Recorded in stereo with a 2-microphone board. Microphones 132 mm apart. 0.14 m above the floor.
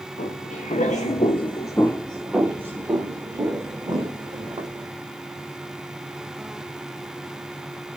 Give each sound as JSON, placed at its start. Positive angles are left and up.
{"t": 0.2, "sound": "footsteps", "side_deg": 85, "distance_m": 1.0}